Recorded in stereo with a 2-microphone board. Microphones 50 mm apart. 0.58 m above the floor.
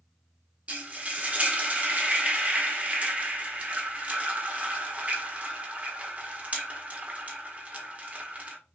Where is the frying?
25° right (ahead or behind), 1.0 m.